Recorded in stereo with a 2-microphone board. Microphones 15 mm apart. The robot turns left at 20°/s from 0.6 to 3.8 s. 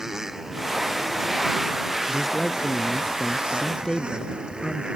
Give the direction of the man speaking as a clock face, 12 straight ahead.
6 o'clock.